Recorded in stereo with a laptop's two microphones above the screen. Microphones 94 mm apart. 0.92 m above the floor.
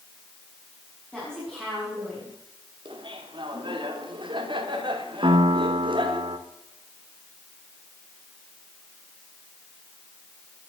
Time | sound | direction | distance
1.1 | a woman speaking | 10° right (ahead or behind) | 6.5 m
2.9 | laughter | 60° right (ahead or behind) | 3 m
5.2 | a piano | 70° right (ahead or behind) | 2.0 m